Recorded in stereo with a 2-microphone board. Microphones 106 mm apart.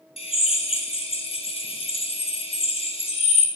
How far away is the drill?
About 1.9 m.